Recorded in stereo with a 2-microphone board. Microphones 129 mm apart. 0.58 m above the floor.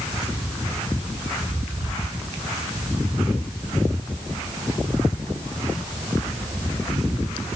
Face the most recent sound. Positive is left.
No sound to turn to.